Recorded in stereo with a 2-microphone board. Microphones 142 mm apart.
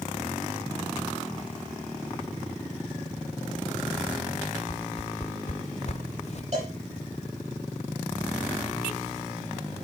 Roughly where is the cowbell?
Right.